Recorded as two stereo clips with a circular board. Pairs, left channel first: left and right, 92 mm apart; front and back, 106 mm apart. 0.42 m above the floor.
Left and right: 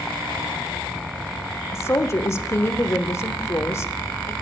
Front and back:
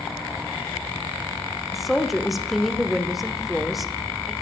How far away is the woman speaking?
About 0.8 m.